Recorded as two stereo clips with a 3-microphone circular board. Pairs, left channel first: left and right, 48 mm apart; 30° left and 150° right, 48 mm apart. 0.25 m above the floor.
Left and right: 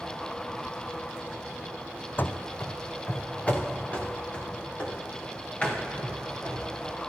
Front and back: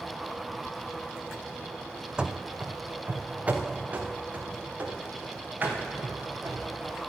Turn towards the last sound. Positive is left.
turn(degrees=155)